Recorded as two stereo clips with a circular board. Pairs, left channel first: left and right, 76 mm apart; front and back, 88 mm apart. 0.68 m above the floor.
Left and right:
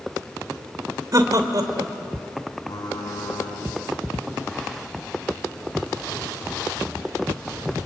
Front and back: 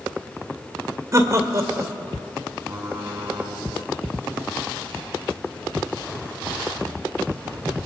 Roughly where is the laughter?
Behind right.